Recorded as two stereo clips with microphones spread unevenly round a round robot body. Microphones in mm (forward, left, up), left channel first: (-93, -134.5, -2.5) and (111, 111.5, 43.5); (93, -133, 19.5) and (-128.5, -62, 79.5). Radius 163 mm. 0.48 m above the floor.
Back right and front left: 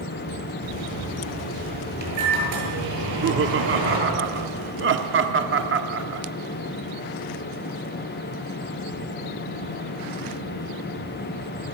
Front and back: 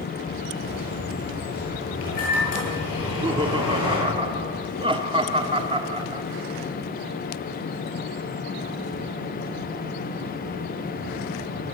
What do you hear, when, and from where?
0.6 s a microwave: 15° left, 8.5 m
3.0 s laughter: 85° left, 0.9 m